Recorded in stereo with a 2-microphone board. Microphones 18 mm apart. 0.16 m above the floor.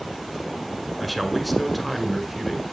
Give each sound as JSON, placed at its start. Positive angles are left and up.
{"t": 1.0, "sound": "a man speaking", "side_deg": 0, "distance_m": 1.7}